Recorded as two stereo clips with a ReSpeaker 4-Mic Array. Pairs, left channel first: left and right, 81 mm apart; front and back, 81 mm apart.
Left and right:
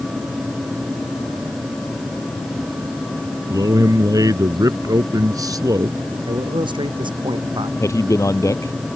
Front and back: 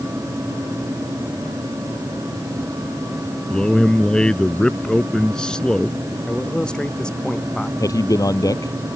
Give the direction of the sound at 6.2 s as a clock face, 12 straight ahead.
3 o'clock.